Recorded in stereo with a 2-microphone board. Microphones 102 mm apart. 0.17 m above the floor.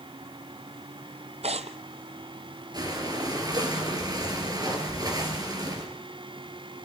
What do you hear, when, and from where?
1.4 s tearing paper: 80° right, 1.1 m
2.7 s breathing: 40° right (ahead or behind), 3.5 m